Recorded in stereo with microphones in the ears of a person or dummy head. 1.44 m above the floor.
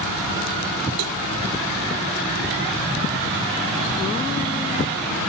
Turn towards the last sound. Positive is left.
turn(degrees=-80)